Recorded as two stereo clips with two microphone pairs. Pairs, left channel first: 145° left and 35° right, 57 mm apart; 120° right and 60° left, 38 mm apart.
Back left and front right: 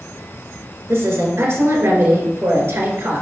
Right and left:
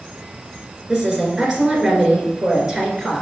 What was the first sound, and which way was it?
A woman speaking, 10° right.